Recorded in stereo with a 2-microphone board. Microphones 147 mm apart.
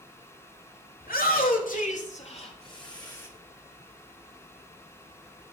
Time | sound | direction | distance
1.0 | a shout | 85° left | 3 m